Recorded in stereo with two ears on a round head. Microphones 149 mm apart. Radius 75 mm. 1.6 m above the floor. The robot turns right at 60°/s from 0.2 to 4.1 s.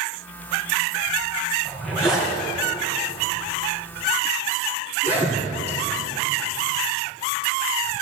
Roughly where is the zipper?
Centre.